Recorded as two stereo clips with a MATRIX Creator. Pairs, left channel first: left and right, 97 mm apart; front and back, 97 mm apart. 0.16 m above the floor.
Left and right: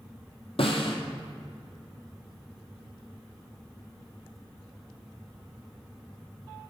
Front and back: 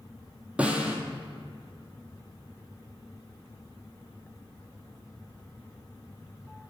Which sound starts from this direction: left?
A snare drum, at 0.6 s.